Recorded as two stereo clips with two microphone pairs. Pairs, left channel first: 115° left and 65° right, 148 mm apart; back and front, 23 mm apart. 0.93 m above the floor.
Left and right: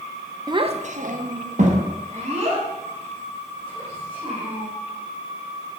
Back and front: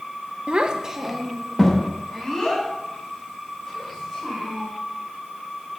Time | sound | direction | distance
0.5 | a child speaking | 10° right | 0.5 m